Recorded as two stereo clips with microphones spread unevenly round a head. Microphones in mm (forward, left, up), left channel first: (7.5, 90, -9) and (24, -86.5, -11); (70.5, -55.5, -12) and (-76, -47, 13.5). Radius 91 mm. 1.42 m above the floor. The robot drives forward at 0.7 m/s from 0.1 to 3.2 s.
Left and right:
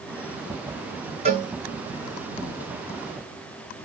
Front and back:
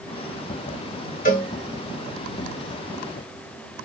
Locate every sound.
1.2 s a cowbell: 30° right, 3.5 m